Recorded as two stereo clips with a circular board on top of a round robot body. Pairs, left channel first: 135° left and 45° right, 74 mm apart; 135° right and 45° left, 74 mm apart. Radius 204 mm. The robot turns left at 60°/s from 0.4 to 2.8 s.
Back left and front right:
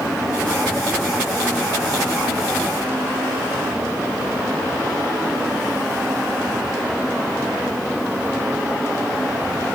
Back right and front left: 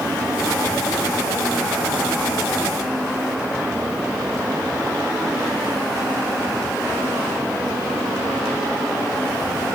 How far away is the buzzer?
No buzzer in this recording.